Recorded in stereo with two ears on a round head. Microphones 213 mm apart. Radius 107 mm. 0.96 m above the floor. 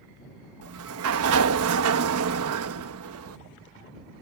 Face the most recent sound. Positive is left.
turn(degrees=-65)  # may be behind; listen again after turning